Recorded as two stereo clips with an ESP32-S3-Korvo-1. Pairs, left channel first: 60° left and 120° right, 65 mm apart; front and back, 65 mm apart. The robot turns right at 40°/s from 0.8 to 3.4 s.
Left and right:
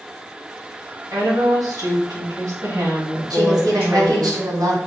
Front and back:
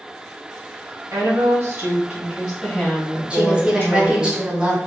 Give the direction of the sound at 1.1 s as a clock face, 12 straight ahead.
5 o'clock.